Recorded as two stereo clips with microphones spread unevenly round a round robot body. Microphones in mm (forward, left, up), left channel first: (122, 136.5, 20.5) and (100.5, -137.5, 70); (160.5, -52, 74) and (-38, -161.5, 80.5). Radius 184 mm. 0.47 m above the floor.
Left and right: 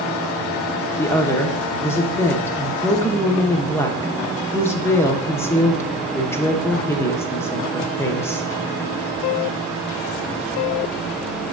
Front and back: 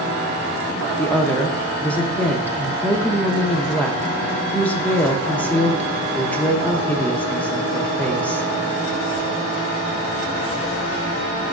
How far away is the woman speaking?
About 0.8 m.